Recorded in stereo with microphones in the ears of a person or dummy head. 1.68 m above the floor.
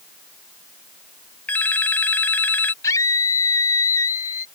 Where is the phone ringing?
15° left (ahead or behind).